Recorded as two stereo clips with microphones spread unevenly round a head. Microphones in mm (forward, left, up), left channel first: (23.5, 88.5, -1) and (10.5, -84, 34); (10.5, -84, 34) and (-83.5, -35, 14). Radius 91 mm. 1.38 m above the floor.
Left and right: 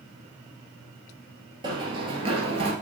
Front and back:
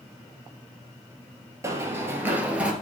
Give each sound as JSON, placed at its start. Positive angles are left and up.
{"t": 1.6, "sound": "running footsteps", "azimuth_deg": -145, "distance_m": 2.0}